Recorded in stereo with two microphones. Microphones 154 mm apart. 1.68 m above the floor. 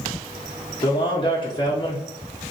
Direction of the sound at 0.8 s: 35° left (ahead or behind).